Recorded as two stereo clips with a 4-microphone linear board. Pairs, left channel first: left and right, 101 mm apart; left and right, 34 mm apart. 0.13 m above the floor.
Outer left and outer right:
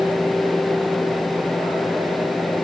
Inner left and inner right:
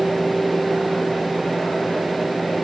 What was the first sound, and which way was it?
Only background noise.